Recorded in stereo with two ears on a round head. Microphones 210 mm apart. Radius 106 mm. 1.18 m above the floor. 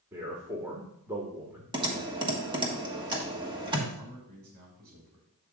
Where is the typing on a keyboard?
20° right (ahead or behind), 1.5 m.